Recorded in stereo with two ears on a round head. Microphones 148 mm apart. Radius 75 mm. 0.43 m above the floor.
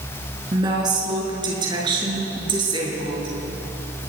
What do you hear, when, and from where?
0.5 s a woman speaking: 25° right (ahead or behind), 5 m; by 3.4 s 30° right (ahead or behind), 7 m